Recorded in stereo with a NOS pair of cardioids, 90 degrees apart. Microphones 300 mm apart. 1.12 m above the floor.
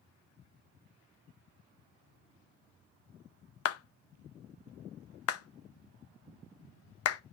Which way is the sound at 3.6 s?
55° left.